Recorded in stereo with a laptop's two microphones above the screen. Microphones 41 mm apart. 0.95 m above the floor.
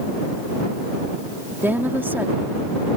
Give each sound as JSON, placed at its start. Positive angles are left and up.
{"t": 1.6, "sound": "a woman speaking", "side_deg": -60}